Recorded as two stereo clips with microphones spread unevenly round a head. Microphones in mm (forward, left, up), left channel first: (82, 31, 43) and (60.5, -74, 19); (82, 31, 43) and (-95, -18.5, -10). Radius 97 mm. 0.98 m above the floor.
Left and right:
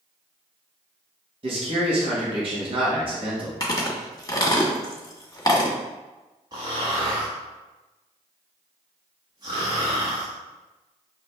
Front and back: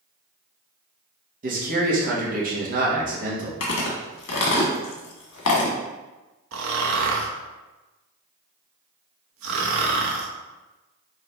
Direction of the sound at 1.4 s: 130° right.